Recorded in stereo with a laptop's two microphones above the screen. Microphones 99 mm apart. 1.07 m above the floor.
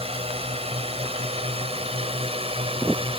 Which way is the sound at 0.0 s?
75° right (ahead or behind).